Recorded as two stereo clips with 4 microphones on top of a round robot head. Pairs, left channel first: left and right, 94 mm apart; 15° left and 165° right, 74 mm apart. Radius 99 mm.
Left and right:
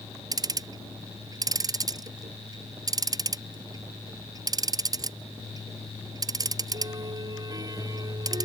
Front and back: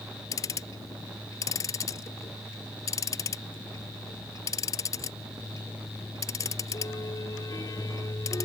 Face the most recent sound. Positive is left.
turn(degrees=-40)